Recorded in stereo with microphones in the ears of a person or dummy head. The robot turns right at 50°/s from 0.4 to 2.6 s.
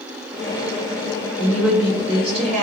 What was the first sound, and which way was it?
A woman speaking, 170° left.